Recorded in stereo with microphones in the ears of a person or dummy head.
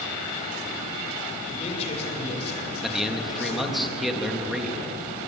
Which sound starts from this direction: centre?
A man speaking, at 2.8 s.